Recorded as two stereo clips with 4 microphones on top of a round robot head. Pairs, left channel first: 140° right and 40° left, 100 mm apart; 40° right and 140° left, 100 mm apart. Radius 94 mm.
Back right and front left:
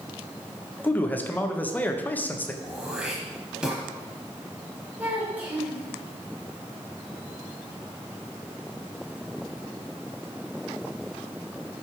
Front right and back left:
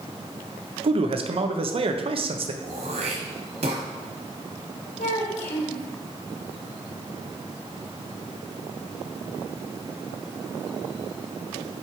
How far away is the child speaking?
About 3.5 m.